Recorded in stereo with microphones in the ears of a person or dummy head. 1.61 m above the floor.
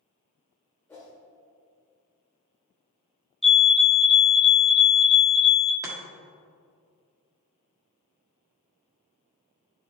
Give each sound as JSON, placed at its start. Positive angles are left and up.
{"t": 0.9, "sound": "a whoosh", "side_deg": 5, "distance_m": 1.4}
{"t": 3.4, "sound": "a fire alarm", "side_deg": 5, "distance_m": 0.5}
{"t": 5.8, "sound": "chopping", "side_deg": -20, "distance_m": 1.5}